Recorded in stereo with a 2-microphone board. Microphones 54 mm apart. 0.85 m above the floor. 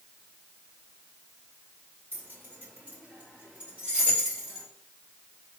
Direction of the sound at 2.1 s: 40° right (ahead or behind).